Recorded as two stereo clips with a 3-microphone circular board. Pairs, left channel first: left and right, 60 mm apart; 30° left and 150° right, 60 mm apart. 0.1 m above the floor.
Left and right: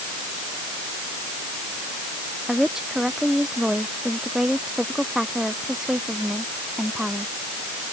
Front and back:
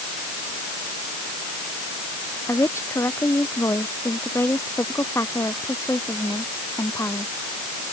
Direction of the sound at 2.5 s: 10° right.